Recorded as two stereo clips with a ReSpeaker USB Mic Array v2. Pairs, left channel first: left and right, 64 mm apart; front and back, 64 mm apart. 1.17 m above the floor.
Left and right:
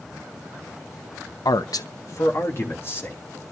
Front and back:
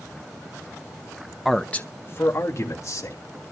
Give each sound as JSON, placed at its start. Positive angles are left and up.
{"t": 1.4, "sound": "a man speaking", "azimuth_deg": 95, "distance_m": 0.6}